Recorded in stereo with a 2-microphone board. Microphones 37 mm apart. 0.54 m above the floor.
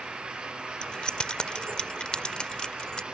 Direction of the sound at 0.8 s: 25° left (ahead or behind).